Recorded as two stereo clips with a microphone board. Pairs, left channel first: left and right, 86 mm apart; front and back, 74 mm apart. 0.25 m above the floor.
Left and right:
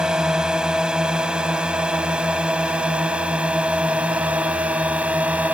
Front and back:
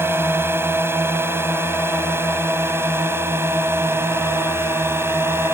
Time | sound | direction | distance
0.0 | a drone | 165° right | ?